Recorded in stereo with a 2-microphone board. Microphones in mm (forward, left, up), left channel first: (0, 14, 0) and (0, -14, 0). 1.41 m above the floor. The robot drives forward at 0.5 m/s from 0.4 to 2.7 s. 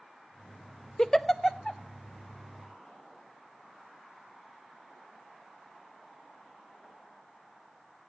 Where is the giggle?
20° left (ahead or behind), 0.6 m; by 1.8 s 10° left (ahead or behind), 1.0 m.